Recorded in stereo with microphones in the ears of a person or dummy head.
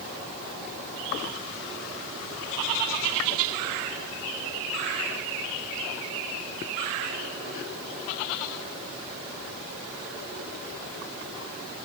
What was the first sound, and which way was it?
Only background noise.